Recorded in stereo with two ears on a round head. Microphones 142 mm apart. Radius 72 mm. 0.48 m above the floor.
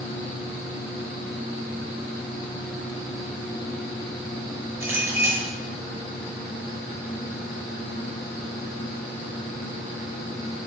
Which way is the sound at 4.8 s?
15° right (ahead or behind).